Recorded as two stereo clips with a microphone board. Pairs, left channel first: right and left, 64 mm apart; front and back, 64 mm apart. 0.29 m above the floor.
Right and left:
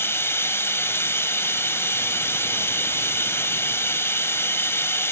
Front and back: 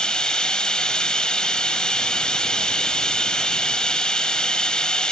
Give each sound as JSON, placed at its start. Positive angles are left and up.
{"t": 0.0, "sound": "running water", "azimuth_deg": -70, "distance_m": 1.4}